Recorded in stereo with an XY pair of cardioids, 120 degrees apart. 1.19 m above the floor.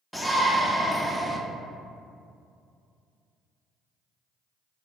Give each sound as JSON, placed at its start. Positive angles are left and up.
{"t": 0.1, "sound": "a shout", "azimuth_deg": 0, "distance_m": 0.6}